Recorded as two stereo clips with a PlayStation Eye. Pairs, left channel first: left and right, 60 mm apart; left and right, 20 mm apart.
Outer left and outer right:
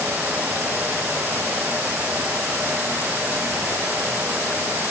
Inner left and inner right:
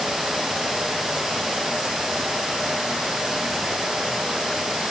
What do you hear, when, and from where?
Only background noise.